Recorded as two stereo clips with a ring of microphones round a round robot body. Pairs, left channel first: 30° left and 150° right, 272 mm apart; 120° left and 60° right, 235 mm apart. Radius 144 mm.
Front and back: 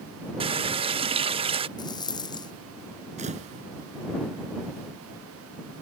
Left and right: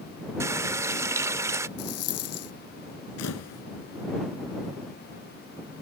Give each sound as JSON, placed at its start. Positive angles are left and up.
{"t": 0.4, "sound": "a running tap", "azimuth_deg": -120}
{"t": 1.8, "sound": "a rattle", "azimuth_deg": 105}
{"t": 3.2, "sound": "a camera shutter", "azimuth_deg": 145}